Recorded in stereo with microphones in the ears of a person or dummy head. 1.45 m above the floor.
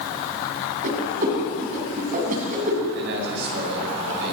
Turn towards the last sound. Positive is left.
turn(degrees=-65)  # may be behind; listen again after turning